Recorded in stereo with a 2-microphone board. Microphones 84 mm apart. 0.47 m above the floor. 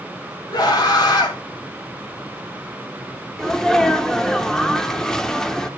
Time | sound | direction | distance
0.5 | a scream | 55° left (ahead or behind) | 3 m
3.4 | a sneeze | 5° left (ahead or behind) | 0.8 m